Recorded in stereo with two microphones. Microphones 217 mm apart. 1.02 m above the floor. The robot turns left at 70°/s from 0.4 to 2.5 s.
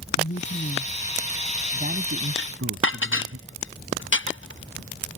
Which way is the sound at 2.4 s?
60° left (ahead or behind).